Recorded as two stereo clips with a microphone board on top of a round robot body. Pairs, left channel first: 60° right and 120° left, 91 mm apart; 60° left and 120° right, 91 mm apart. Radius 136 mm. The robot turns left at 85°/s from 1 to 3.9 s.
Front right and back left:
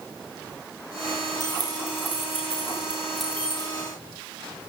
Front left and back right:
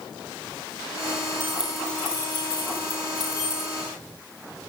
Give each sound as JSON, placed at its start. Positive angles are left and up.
{"t": 1.4, "sound": "keys jangling", "azimuth_deg": 180, "distance_m": 8.0}